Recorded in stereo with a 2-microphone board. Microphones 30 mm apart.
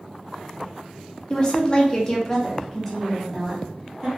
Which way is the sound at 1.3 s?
30° left (ahead or behind).